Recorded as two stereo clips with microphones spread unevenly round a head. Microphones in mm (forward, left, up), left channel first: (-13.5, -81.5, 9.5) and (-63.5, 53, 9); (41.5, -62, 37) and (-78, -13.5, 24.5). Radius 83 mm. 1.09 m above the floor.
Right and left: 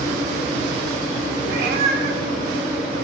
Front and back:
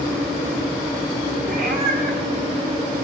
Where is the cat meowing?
120° left, 1.9 m.